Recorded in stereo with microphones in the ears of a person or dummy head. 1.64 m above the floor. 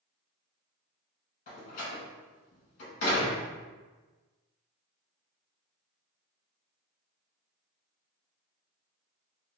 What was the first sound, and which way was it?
A door slam, 45° left (ahead or behind).